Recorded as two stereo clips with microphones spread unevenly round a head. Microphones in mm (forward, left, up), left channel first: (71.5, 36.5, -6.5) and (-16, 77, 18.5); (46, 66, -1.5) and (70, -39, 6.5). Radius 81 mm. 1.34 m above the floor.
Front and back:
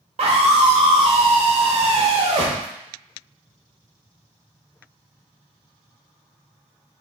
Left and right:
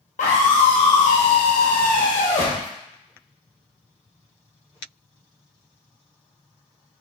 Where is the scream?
135° left, 0.8 m.